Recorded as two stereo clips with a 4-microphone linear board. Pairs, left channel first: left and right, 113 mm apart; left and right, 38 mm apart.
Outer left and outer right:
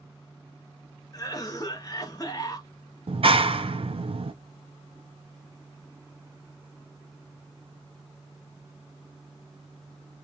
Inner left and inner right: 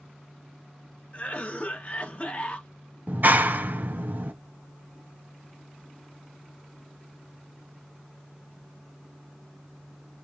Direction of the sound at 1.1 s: 35° left (ahead or behind).